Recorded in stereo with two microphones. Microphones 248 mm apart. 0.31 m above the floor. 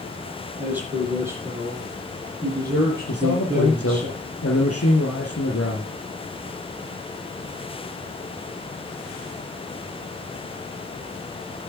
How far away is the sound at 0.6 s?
About 9.5 m.